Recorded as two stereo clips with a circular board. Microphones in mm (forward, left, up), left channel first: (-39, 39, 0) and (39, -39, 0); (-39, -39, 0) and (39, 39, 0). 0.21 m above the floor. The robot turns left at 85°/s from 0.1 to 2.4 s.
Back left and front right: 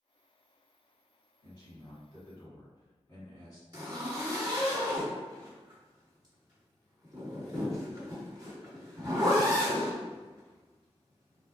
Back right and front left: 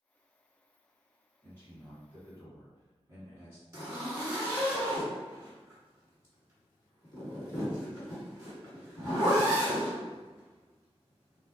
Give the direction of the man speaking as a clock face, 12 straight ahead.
6 o'clock.